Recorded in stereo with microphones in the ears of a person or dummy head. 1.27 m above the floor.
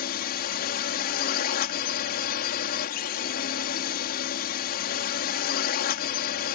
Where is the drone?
50° left (ahead or behind).